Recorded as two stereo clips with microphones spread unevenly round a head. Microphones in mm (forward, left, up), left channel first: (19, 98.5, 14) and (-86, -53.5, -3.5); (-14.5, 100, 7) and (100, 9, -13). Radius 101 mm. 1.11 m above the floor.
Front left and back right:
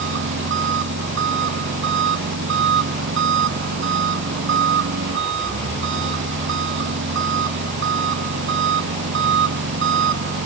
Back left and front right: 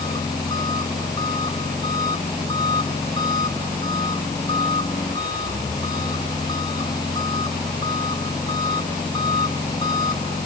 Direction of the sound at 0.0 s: 145° right.